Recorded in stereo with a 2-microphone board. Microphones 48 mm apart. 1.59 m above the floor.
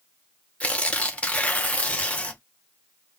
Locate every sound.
0.6 s tearing paper: 25° left (ahead or behind), 0.6 m